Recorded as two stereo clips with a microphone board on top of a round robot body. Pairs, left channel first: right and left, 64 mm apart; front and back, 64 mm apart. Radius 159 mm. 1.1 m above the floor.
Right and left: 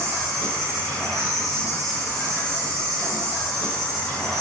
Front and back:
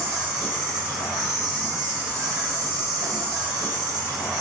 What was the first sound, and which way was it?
An insect, straight behind.